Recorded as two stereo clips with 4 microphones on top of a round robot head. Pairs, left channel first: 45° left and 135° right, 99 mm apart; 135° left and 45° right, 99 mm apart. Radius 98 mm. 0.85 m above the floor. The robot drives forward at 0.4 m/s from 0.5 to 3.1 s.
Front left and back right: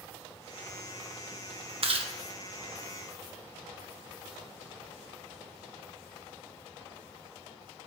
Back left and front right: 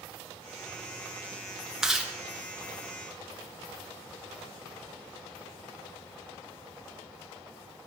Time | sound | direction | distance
1.8 | chewing | 130° right | 1.3 m